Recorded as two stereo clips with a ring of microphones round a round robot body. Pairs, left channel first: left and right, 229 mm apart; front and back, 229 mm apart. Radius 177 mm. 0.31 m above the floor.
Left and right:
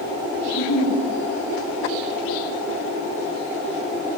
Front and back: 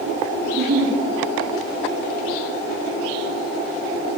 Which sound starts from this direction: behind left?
A giggle, at 0.5 s.